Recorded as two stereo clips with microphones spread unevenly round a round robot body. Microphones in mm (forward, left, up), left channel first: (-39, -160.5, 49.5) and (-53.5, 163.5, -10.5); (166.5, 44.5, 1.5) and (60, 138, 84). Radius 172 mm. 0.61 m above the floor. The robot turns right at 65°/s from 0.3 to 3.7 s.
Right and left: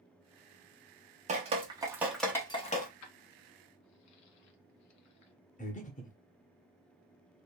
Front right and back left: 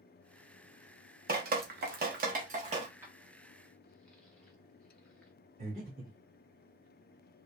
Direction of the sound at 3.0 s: 115° right.